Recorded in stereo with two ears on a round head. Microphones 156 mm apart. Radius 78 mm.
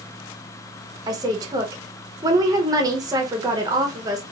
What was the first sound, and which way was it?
A woman speaking, 20° right (ahead or behind).